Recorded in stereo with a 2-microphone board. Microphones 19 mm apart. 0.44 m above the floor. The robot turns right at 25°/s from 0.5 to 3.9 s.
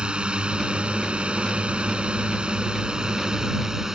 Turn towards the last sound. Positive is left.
turn(degrees=-25)